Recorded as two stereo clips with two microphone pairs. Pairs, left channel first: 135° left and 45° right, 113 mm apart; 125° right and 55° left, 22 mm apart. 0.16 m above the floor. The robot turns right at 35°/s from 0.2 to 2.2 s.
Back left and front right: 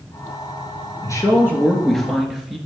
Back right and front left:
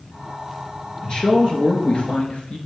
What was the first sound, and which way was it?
A man speaking, 170° right.